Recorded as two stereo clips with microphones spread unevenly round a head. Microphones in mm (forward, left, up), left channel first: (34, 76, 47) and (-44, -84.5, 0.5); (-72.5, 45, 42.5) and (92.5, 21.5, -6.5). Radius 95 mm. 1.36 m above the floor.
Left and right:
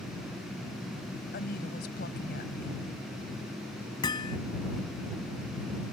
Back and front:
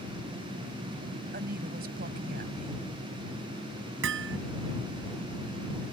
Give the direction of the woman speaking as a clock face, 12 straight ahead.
11 o'clock.